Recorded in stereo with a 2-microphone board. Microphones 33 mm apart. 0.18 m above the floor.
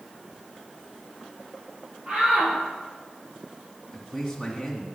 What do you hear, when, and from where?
2.1 s a shout: 40° right (ahead or behind), 7 m
3.9 s a man speaking: 5° left (ahead or behind), 1.8 m